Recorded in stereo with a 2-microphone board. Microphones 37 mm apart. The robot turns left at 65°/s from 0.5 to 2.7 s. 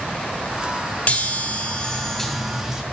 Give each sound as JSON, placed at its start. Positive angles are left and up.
{"t": 1.1, "sound": "a chime", "azimuth_deg": 85, "distance_m": 1.1}